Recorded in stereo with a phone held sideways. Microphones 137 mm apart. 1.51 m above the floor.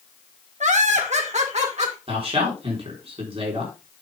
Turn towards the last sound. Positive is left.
turn(degrees=-45)  # may be behind; listen again after turning